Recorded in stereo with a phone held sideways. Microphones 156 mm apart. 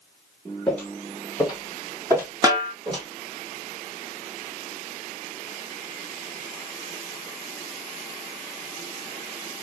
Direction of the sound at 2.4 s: 20° right (ahead or behind).